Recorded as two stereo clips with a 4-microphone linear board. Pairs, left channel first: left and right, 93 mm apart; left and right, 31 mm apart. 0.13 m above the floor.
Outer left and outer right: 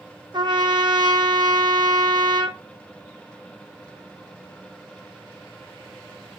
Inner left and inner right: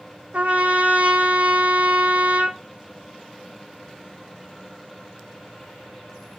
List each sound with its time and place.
0.3 s a trumpet: 50° right (ahead or behind), 1.5 m